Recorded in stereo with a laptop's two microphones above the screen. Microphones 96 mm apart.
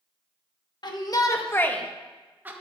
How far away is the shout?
About 1.5 m.